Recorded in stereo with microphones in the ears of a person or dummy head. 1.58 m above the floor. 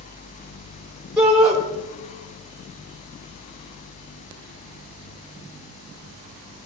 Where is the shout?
Centre (ahead or behind), 3.5 m.